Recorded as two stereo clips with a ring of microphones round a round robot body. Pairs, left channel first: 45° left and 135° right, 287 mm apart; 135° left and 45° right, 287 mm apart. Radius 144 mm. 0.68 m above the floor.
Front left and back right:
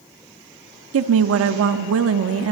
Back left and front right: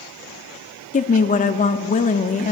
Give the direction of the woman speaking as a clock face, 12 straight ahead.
5 o'clock.